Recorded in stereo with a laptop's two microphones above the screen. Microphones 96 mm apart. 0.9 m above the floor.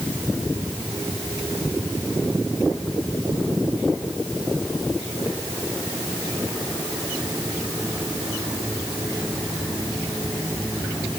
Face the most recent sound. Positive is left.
No sound to turn to.